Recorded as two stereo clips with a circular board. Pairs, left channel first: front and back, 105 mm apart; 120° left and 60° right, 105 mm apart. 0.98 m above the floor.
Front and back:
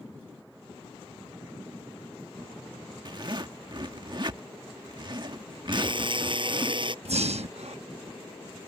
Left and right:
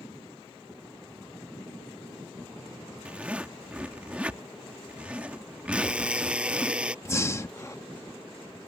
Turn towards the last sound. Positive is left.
turn(degrees=-175)